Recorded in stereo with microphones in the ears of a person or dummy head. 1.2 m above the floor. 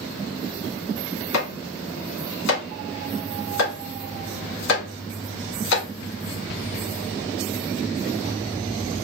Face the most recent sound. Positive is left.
turn(degrees=80)